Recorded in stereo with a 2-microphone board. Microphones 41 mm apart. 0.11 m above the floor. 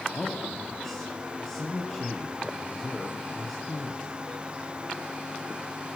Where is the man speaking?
15° left (ahead or behind), 2.5 m.